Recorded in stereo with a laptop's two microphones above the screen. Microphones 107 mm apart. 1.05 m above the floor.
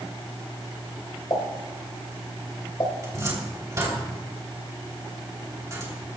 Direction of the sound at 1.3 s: 50° left (ahead or behind).